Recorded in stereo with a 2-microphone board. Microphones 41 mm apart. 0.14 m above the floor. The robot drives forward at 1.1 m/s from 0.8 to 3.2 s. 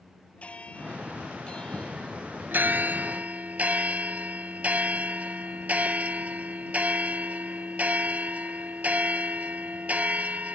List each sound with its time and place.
0.4 s a bell: 30° left (ahead or behind); by 2.4 s 15° left (ahead or behind)
2.5 s a bell: 50° right (ahead or behind); by 10.6 s 35° right (ahead or behind)